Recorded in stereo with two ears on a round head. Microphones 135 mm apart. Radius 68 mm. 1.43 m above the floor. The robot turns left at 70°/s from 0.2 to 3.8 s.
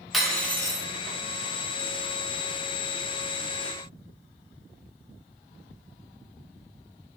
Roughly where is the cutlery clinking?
Behind.